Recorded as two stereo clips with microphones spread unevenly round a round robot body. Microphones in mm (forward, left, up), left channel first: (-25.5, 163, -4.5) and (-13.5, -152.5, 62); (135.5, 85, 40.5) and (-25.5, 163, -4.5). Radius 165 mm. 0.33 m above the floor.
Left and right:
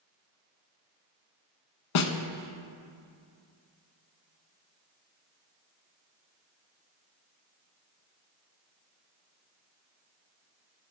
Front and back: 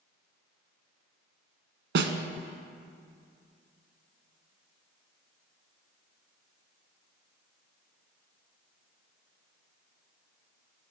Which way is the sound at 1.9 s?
125° left.